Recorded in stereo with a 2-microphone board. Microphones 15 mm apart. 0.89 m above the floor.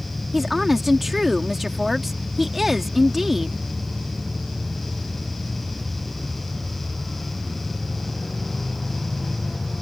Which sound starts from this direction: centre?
A woman speaking, at 0.3 s.